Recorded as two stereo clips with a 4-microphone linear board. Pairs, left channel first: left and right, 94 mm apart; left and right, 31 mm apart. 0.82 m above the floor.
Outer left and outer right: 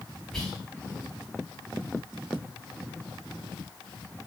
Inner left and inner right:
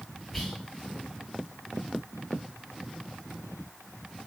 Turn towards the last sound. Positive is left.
turn(degrees=10)  # may be behind; listen again after turning